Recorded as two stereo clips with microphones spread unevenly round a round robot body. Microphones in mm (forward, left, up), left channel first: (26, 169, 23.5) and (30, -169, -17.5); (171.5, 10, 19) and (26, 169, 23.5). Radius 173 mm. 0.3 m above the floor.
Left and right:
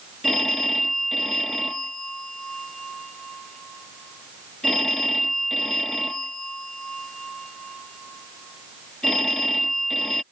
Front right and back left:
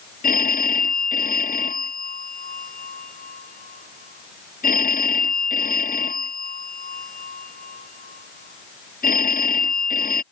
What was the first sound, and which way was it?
A phone ringing, straight ahead.